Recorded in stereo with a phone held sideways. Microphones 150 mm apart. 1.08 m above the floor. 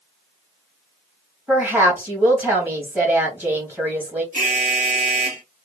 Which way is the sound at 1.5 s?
15° right (ahead or behind).